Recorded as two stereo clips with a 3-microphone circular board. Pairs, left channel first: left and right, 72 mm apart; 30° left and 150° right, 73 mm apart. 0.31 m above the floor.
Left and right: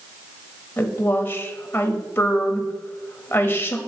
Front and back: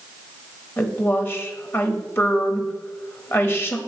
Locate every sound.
0.8 s a woman speaking: 55° left, 1.1 m